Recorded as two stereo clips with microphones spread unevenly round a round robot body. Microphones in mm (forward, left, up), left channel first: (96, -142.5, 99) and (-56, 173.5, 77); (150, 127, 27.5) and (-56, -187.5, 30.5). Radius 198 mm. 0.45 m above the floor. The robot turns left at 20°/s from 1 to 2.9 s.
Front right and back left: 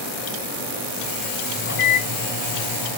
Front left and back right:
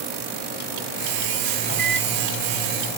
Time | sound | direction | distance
1.6 | a microwave | straight ahead | 1.2 m